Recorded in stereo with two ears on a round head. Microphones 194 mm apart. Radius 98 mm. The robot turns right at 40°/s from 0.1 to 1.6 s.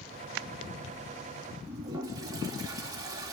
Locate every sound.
1.7 s a toilet flushing: 20° right (ahead or behind), 3 m